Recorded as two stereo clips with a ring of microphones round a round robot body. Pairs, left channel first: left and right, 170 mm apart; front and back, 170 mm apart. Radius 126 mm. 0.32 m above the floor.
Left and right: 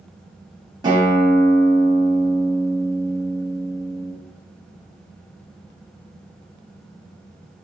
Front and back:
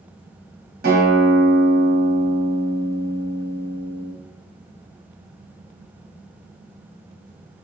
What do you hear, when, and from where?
0.8 s a guitar: 155° right, 1.7 m